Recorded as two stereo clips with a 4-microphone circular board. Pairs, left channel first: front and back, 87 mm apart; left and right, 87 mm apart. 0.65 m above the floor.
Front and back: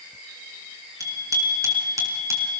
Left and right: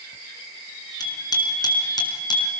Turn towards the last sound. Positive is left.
turn(degrees=125)